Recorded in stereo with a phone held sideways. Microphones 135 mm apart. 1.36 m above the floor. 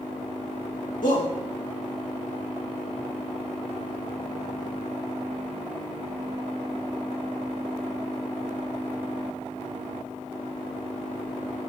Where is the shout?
70° left (ahead or behind), 2.5 m.